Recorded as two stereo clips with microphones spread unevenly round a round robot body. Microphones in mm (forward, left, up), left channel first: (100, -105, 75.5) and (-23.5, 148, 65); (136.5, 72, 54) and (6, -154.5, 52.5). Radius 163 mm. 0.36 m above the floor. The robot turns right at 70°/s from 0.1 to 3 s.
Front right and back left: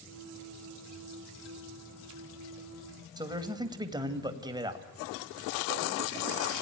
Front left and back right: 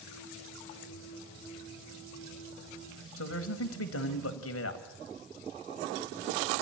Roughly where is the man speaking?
Ahead left.